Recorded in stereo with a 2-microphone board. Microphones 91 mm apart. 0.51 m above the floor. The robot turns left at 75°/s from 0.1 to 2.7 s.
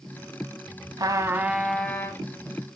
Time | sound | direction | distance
1.0 | a trumpet | 130° right | 0.7 m